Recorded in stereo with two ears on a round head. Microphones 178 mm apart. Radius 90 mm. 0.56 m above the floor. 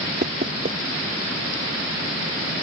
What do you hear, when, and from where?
0.2 s knocking: 40° right (ahead or behind)